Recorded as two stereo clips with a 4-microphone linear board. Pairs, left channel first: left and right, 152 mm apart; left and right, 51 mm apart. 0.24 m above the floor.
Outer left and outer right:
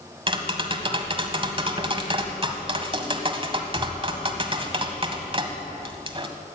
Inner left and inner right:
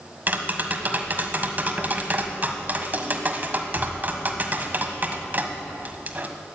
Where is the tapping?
35° right (ahead or behind), 1.6 m.